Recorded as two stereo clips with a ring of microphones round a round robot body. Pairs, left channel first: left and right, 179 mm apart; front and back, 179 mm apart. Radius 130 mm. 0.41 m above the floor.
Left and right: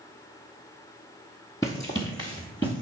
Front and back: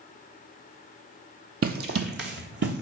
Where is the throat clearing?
No throat clearing in this recording.